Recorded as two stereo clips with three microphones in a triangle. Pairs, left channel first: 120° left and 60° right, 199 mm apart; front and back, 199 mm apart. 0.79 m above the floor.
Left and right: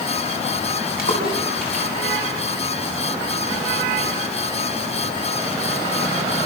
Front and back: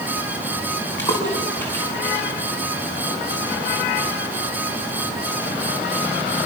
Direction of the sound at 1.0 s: 80° left.